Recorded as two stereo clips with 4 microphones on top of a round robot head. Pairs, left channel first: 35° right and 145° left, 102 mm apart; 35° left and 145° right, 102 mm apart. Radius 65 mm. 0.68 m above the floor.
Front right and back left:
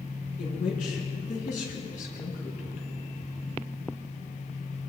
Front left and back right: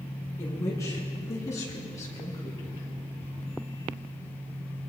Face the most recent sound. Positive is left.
turn(degrees=-25)